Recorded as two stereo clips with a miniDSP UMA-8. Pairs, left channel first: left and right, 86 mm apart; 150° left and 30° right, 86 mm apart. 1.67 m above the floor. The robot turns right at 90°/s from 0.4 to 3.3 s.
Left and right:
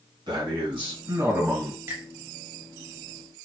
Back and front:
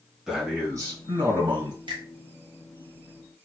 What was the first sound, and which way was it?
A man speaking, 110° right.